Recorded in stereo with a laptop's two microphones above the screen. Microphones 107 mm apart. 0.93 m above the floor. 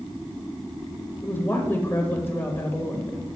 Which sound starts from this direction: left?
A woman speaking, at 1.2 s.